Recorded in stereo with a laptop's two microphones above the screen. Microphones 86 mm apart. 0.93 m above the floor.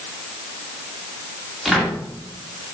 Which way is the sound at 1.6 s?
Centre (ahead or behind).